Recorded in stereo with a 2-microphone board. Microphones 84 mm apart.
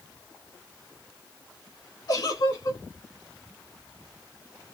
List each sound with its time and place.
2.1 s a giggle: 55° left (ahead or behind), 1.6 m